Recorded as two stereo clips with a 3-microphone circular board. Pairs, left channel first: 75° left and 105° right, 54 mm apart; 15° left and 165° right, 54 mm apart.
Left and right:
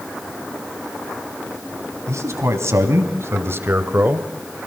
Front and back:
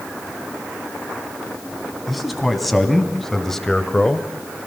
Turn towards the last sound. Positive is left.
turn(degrees=-55)